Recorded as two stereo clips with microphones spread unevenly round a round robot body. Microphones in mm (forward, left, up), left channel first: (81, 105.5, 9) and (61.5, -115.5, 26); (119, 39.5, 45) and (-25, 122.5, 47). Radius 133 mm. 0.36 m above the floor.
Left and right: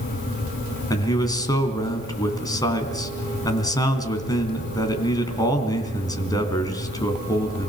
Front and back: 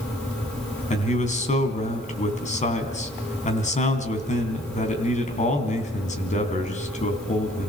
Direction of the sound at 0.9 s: 10° left.